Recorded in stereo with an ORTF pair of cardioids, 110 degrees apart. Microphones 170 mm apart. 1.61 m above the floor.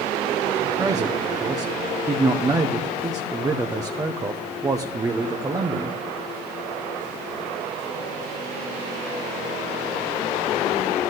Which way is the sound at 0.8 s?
20° right.